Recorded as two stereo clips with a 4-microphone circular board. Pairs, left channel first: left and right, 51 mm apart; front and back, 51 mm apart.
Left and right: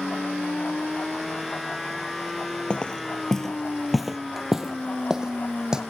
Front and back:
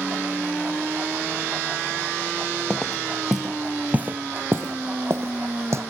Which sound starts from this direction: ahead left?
Footsteps, at 2.7 s.